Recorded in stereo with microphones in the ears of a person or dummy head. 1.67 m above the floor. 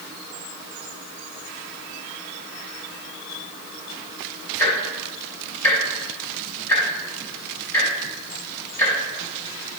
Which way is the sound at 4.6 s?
15° left (ahead or behind).